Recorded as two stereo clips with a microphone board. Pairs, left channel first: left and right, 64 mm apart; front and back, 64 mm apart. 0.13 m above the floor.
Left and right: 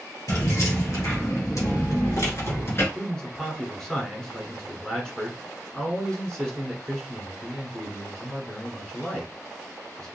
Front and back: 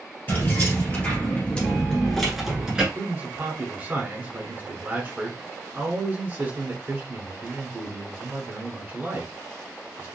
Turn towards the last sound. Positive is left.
turn(degrees=160)